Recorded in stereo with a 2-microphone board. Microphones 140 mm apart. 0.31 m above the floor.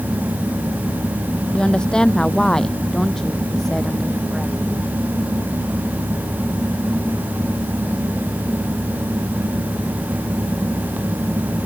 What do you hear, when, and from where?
1.5 s a woman speaking: 5° left (ahead or behind); by 4.5 s centre (ahead or behind)